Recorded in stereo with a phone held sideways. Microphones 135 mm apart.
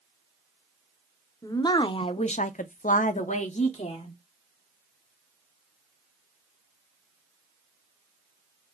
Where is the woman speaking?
25° left (ahead or behind), 0.7 m; by 4.2 s 45° left (ahead or behind), 1.0 m.